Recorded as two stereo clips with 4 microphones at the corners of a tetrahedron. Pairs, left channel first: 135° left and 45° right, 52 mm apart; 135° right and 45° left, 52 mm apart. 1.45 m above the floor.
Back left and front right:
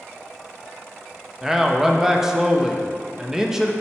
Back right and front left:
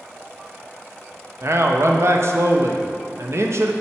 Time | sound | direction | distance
1.4 | a man speaking | 35° left | 0.6 m